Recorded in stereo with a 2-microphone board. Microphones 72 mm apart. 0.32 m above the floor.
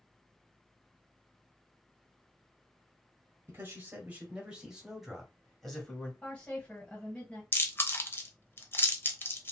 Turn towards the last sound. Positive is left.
turn(degrees=30)  # may be behind; listen again after turning